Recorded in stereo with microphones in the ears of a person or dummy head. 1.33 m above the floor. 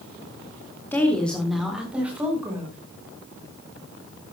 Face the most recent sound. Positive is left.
turn(degrees=-15)  # may be behind; listen again after turning